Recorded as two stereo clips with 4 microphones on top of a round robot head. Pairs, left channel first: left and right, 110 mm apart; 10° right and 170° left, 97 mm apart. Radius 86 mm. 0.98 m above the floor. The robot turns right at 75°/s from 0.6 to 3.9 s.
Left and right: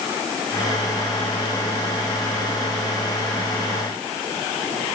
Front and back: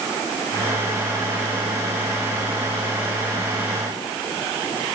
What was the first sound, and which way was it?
Only background noise.